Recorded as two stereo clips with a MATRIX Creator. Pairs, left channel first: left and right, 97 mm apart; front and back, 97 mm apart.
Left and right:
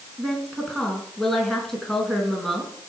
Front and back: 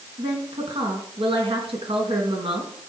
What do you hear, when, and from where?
0.2 s a woman speaking: 175° left, 4 m